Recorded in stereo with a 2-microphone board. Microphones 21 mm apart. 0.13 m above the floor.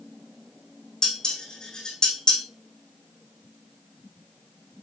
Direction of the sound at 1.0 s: 35° left (ahead or behind).